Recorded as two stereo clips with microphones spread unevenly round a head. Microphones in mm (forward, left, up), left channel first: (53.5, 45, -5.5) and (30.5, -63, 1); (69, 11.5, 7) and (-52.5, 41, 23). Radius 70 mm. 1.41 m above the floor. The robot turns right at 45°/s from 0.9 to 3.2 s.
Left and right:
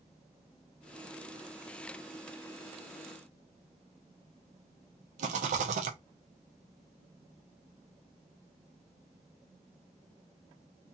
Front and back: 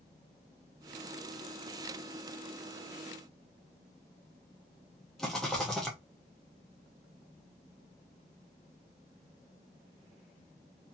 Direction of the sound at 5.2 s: 105° right.